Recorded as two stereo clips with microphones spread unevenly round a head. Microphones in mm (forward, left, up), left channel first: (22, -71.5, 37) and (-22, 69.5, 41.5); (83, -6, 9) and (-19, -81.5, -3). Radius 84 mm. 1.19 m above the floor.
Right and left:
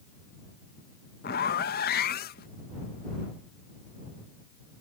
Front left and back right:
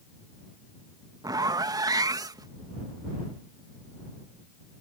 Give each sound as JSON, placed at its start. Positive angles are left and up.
{"t": 1.2, "sound": "a zipper", "azimuth_deg": -85}